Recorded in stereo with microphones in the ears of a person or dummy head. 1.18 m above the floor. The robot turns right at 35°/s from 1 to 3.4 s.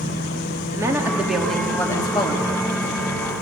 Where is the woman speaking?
15° right, 2.5 m; by 2.5 s 40° left, 2.5 m.